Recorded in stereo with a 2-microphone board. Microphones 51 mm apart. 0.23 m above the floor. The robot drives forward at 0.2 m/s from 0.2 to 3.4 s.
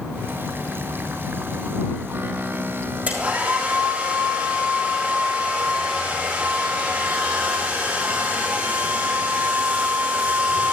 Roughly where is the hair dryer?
Right.